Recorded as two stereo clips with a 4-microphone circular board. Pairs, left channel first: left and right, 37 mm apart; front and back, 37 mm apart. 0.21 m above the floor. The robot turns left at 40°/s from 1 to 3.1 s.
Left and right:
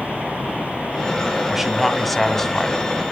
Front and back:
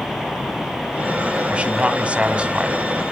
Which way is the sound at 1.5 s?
165° right.